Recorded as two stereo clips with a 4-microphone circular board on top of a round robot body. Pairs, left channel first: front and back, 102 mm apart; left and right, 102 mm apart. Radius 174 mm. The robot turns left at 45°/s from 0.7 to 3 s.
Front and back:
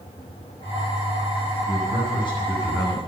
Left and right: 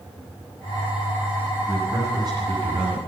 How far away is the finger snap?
I don't hear a finger snap.